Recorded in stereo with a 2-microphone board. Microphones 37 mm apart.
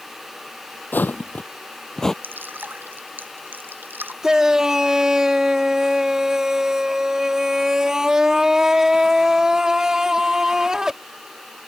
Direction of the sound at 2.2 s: 60° right (ahead or behind).